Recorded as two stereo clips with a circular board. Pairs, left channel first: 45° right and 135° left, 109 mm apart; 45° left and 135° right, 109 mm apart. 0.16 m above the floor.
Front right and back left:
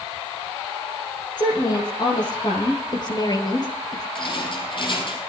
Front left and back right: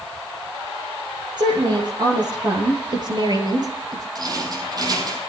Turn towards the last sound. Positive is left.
turn(degrees=-85)